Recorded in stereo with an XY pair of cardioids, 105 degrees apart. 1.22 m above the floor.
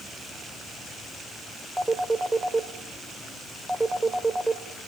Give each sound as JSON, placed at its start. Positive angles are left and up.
{"t": 1.8, "sound": "a phone ringing", "azimuth_deg": -15, "distance_m": 2.5}